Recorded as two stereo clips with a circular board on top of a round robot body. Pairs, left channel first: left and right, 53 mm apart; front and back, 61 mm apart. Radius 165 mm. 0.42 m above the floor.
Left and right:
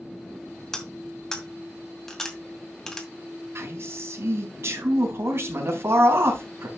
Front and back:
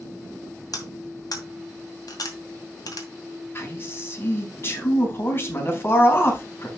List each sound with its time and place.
0.7 s cutlery clinking: 10° left, 2.5 m
3.5 s a man speaking: 50° right, 4 m